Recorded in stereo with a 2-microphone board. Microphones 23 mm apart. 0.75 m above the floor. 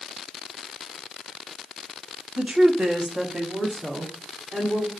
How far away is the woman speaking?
About 1.0 m.